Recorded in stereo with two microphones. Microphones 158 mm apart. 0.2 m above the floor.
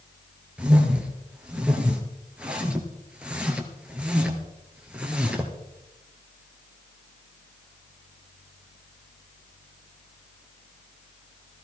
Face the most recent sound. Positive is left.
turn(degrees=-5)  # may be behind; listen again after turning